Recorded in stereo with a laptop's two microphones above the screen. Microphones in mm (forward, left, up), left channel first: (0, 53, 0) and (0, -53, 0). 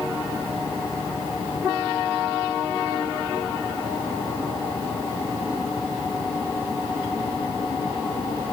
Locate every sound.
Only background noise.